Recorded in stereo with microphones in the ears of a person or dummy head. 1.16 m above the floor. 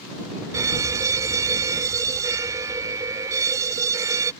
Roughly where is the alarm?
Centre.